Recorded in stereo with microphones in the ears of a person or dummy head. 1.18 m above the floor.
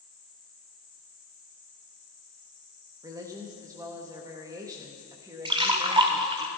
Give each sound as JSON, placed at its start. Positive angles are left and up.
{"t": 3.0, "sound": "a woman speaking", "side_deg": -15, "distance_m": 1.5}
{"t": 5.5, "sound": "a splash", "side_deg": -20, "distance_m": 1.4}